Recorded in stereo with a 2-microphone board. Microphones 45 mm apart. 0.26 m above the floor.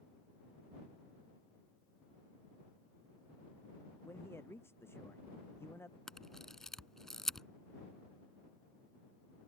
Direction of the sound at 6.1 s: 10° left (ahead or behind).